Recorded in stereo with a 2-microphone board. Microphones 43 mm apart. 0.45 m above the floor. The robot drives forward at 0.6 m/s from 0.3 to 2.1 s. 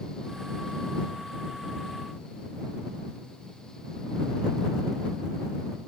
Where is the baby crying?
I don't hear a baby crying.